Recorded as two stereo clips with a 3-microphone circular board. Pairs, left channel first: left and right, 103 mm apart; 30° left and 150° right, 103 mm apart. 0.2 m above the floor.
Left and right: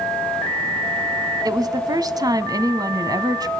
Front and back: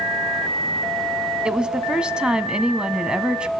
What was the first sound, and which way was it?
A woman speaking, 70° right.